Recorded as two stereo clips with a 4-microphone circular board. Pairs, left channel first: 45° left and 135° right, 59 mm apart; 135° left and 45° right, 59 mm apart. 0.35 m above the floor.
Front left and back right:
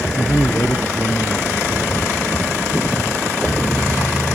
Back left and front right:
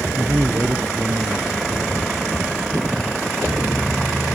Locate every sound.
0.2 s a man speaking: straight ahead